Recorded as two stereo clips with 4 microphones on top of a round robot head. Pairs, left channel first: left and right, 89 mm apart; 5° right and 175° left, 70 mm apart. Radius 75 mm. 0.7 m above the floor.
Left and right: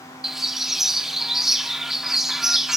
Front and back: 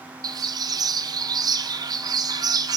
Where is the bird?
175° right, 1.6 m.